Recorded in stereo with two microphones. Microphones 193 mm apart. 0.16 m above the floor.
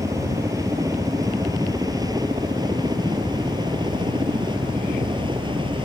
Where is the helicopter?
15° right (ahead or behind); by 5.8 s 25° right (ahead or behind).